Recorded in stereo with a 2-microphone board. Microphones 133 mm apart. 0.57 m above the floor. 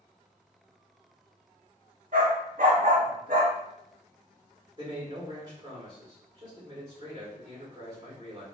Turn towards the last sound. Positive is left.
turn(degrees=-30)  # may be behind; listen again after turning